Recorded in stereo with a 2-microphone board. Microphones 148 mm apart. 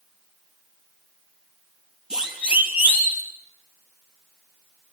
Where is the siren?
5° right (ahead or behind), 5 m; by 3.2 s 15° right (ahead or behind), 5 m.